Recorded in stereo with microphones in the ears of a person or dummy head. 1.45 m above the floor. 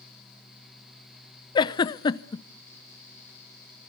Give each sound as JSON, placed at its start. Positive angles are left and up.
{"t": 1.6, "sound": "a giggle", "side_deg": 25, "distance_m": 0.7}